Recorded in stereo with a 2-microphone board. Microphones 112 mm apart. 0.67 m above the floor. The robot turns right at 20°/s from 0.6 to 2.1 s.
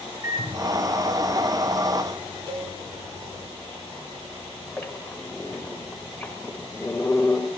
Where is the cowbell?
50° right (ahead or behind), 4.5 m.